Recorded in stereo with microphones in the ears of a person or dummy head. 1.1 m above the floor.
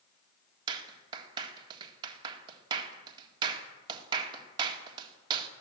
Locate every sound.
0.7 s a clap: 30° right (ahead or behind), 2 m